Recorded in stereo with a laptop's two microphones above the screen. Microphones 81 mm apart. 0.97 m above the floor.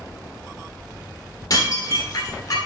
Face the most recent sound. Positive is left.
turn(degrees=50)  # may be behind; listen again after turning